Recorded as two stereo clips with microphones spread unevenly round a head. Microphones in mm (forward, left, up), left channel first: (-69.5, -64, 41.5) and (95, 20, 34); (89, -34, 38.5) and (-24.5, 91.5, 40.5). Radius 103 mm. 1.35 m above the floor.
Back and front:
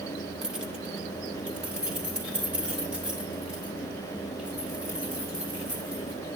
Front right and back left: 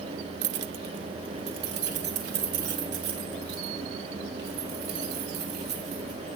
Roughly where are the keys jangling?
Behind left.